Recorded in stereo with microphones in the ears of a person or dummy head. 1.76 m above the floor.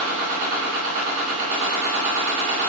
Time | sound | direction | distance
0.0 | a machine running | 55° right (ahead or behind) | 1.9 m